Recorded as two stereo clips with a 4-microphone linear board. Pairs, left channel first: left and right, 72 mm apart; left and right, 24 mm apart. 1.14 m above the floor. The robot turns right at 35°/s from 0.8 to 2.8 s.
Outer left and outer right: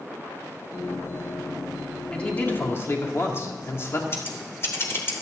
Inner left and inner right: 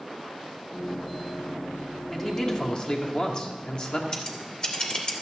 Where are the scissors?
35° left (ahead or behind), 2.5 m.